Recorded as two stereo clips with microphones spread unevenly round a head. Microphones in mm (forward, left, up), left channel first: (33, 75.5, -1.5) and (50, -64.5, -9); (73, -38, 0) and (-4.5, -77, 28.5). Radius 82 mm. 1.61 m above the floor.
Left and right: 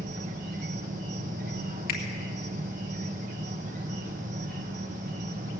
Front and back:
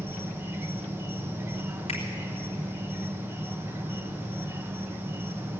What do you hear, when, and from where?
0.0 s an insect: 110° right, 1.0 m
1.9 s a finger snap: 80° left, 2.5 m